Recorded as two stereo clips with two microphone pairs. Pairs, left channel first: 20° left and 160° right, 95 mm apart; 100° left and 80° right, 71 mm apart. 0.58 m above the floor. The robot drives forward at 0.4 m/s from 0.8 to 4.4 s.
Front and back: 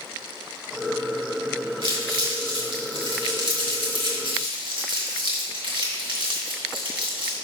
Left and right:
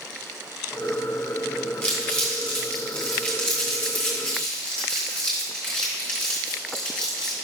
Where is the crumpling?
Straight behind, 3 m.